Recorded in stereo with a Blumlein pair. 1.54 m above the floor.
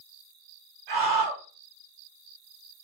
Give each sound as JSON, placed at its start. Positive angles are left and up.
{"t": 0.9, "sound": "a scream", "azimuth_deg": -45, "distance_m": 1.5}